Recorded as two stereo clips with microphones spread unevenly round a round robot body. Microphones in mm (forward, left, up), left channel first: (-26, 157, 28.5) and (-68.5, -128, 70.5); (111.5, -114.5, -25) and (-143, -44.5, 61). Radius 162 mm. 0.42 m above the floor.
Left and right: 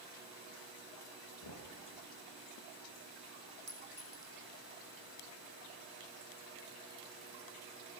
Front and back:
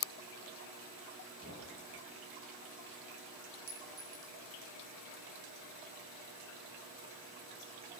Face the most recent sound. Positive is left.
turn(degrees=-165)